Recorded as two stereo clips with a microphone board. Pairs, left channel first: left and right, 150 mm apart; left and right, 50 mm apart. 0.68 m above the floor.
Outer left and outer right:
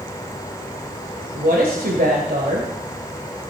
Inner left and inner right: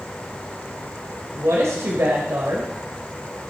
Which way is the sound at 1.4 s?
75° right (ahead or behind).